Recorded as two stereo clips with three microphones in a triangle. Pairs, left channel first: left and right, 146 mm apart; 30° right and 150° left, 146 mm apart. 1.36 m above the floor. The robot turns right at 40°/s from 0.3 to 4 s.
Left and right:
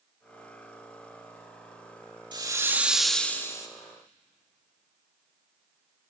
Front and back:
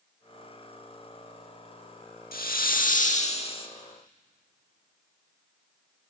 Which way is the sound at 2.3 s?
30° right.